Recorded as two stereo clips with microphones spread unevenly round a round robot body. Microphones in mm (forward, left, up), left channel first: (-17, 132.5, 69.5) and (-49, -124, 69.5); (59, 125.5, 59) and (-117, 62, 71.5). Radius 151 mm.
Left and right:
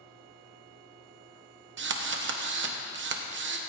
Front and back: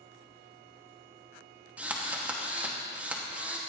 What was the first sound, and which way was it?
A drill, 75° right.